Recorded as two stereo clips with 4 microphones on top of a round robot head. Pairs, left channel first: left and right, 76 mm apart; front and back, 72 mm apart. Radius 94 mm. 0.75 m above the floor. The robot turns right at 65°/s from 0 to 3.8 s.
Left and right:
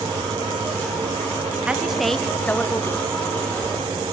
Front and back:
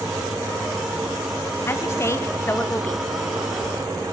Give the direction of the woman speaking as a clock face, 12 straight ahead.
1 o'clock.